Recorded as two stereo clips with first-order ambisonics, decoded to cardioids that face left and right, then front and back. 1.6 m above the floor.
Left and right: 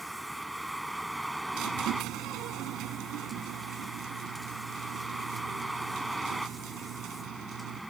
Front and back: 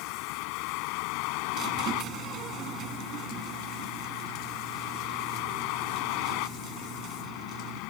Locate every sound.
0.0 s a vehicle: 5° right
1.5 s a squeak: 130° right